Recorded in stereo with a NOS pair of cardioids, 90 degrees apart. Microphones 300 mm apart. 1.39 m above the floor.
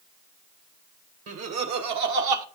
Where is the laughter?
55° right, 1.7 m; by 2.4 s 80° right, 1.3 m.